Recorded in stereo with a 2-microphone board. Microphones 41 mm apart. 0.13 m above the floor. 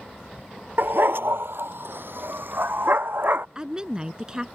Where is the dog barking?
60° right (ahead or behind); by 3.5 s 55° right (ahead or behind).